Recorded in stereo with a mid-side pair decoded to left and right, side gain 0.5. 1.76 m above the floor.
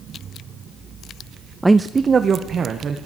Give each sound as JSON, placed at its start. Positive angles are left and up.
{"t": 1.6, "sound": "a man speaking", "azimuth_deg": -5, "distance_m": 0.5}